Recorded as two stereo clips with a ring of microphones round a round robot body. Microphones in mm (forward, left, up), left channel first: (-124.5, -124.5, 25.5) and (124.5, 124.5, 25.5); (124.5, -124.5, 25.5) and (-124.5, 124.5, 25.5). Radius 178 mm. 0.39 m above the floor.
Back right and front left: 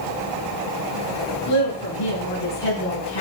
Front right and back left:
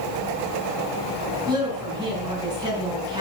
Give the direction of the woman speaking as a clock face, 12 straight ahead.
5 o'clock.